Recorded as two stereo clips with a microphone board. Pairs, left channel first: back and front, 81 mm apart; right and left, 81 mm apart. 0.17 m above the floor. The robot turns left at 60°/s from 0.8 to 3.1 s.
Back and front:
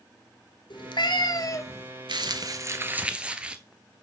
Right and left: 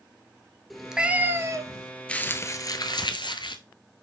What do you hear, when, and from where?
0.7 s a cat meowing: straight behind, 0.9 m; by 1.9 s 115° left, 0.9 m
2.1 s crumpling: 15° right, 0.8 m; by 3.6 s 75° right, 0.8 m